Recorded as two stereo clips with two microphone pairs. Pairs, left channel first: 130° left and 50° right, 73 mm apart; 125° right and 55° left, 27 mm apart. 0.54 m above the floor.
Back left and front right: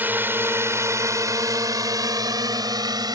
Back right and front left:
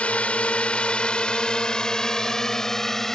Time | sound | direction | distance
0.0 | a drone | 110° right | ?